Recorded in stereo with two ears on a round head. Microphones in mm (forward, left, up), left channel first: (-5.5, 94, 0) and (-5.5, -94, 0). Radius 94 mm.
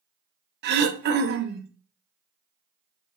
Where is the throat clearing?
50° right (ahead or behind), 0.5 m.